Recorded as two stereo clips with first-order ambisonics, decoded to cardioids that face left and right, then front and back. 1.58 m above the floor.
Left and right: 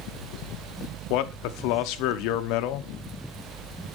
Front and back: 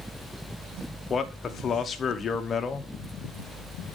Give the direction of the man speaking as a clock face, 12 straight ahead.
10 o'clock.